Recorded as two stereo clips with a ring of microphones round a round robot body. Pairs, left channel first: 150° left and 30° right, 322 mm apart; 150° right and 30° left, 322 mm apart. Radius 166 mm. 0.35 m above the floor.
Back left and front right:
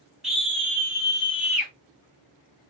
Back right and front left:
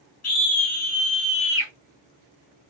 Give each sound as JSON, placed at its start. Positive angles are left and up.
{"t": 0.2, "sound": "a scream", "azimuth_deg": -120, "distance_m": 1.6}